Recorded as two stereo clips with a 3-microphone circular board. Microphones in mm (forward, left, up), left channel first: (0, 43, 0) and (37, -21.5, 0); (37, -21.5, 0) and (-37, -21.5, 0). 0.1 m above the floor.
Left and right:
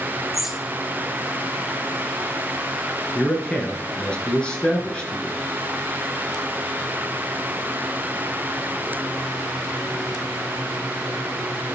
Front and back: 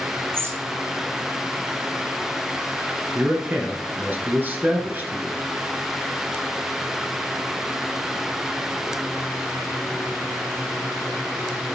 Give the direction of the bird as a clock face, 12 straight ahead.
5 o'clock.